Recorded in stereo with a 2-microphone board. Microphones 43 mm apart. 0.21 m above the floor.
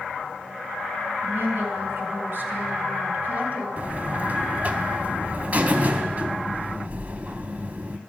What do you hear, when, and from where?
1.2 s a woman speaking: 55° right (ahead or behind), 2.5 m; by 3.7 s 35° right (ahead or behind), 1.4 m
3.8 s a buzzer: 40° right (ahead or behind), 0.5 m